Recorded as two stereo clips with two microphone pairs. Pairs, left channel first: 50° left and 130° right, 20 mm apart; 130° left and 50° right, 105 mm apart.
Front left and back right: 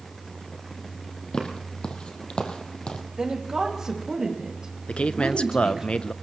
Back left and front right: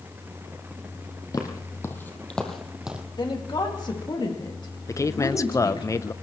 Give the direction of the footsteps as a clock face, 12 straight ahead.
9 o'clock.